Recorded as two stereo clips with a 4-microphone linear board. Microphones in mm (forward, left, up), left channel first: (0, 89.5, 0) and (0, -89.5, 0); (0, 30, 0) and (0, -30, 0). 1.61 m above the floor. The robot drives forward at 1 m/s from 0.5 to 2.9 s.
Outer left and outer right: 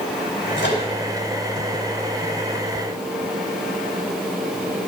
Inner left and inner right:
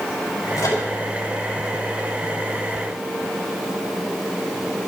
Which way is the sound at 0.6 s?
80° left.